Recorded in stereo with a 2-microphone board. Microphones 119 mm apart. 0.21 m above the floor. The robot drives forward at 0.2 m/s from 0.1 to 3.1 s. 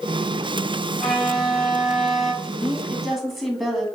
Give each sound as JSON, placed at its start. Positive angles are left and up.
{"t": 1.0, "sound": "a violin", "side_deg": 0, "distance_m": 1.3}
{"t": 2.4, "sound": "a woman speaking", "side_deg": 0, "distance_m": 1.5}